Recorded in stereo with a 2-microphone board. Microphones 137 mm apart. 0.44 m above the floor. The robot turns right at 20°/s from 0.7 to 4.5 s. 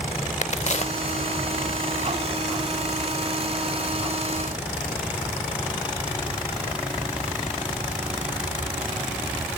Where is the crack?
50° left (ahead or behind), 0.6 m; by 1.2 s 45° left (ahead or behind), 0.6 m.